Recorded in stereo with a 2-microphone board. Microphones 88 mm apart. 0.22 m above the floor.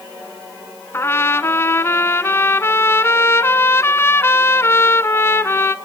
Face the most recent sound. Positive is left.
turn(degrees=30)  # may be behind; listen again after turning